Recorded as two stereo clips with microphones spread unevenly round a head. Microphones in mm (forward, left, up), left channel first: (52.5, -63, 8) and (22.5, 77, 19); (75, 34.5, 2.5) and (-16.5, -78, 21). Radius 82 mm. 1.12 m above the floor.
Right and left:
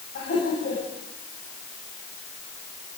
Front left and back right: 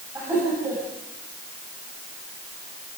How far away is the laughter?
About 8.5 m.